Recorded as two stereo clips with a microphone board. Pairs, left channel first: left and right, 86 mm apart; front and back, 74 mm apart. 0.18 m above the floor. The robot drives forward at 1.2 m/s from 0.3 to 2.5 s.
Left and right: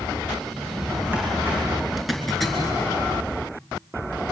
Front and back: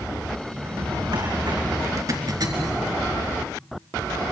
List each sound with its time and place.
0.5 s a drawer: 155° right, 7 m; by 1.6 s 160° right, 8.5 m
2.0 s a zipper: straight behind, 3 m